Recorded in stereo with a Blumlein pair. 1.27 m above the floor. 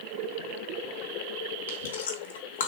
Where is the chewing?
65° left, 3.5 m.